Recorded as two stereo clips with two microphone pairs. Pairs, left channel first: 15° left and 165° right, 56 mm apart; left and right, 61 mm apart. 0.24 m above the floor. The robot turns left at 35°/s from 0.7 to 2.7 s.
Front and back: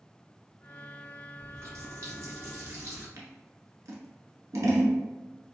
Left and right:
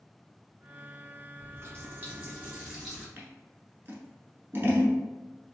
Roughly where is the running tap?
Behind right.